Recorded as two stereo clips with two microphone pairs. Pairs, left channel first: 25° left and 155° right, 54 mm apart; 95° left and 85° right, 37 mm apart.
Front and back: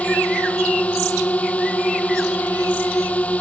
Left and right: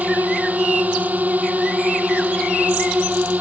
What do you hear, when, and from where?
0.0 s a drone: 45° right